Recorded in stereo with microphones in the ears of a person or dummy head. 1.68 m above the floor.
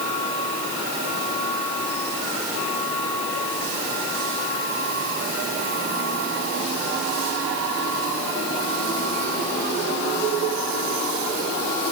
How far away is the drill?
No drill in this recording.